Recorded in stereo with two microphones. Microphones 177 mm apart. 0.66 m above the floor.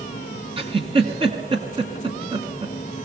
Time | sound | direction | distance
0.6 | a giggle | 30° right (ahead or behind) | 2 m